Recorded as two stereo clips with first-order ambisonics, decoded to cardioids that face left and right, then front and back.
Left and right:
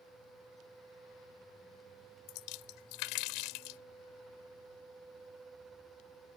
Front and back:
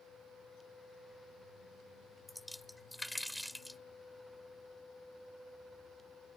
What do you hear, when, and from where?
2.3 s a splash: 90° left